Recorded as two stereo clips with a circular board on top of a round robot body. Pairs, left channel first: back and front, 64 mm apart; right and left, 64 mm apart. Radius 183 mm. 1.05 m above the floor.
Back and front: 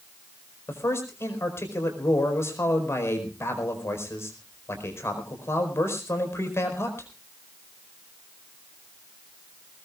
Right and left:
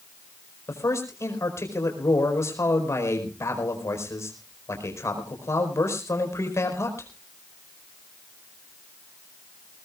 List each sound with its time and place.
0.7 s a man speaking: 130° right, 5 m